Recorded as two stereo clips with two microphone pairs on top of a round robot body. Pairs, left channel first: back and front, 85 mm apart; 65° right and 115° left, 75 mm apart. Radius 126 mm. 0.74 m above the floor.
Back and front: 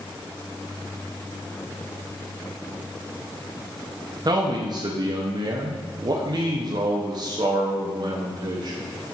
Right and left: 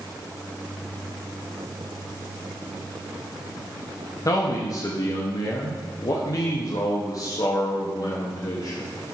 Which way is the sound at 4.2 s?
35° right.